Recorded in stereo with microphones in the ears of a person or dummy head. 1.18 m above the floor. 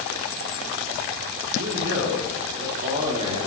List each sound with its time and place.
1.5 s a man speaking: 75° right (ahead or behind), 3.5 m; by 3.5 s 30° right (ahead or behind), 3 m